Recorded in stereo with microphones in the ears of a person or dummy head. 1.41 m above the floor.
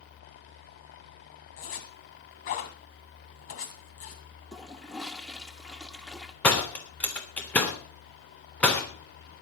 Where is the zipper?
50° left (ahead or behind), 1.9 m.